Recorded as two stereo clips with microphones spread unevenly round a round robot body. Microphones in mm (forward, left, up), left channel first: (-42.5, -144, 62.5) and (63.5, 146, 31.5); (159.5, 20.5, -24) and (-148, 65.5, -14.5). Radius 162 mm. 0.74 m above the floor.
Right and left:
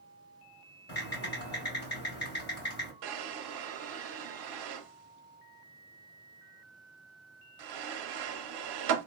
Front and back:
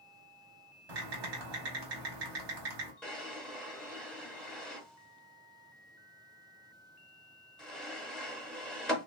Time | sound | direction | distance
0.9 | typing on a keyboard | 170° right | 1.5 m
3.0 | a drawer | 80° left | 0.7 m